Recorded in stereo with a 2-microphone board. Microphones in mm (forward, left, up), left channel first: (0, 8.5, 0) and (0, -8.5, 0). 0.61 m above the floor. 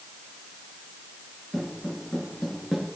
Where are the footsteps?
15° right (ahead or behind), 4 m; by 2.9 s 10° right (ahead or behind), 3 m.